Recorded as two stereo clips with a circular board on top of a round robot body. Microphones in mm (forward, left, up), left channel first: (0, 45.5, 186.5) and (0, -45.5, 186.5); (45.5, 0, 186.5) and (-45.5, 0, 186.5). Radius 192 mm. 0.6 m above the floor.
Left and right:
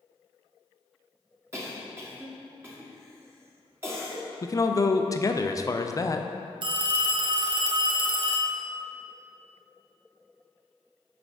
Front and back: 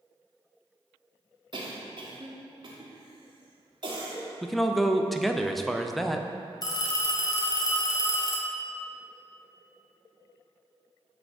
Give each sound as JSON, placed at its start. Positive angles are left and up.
{"t": 1.5, "sound": "a cough", "azimuth_deg": -150, "distance_m": 1.3}
{"t": 4.4, "sound": "a man speaking", "azimuth_deg": 85, "distance_m": 0.6}
{"t": 6.6, "sound": "a phone ringing", "azimuth_deg": -50, "distance_m": 0.6}